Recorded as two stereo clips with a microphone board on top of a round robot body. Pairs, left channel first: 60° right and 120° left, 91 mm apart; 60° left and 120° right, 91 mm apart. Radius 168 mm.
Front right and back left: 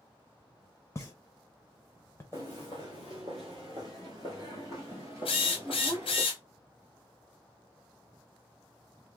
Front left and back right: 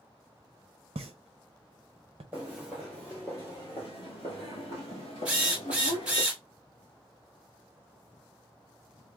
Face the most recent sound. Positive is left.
turn(degrees=-45)